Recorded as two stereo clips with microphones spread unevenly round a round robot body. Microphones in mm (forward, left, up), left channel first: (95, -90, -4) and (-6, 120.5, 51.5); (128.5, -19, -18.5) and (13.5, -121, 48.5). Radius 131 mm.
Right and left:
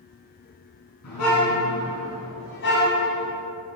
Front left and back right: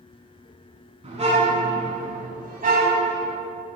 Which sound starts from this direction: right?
A car horn, at 1.0 s.